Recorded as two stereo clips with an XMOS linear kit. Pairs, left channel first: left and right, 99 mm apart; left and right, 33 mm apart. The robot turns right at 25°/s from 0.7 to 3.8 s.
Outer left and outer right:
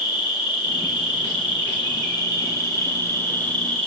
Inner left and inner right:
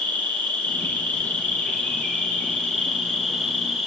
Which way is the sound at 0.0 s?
95° left.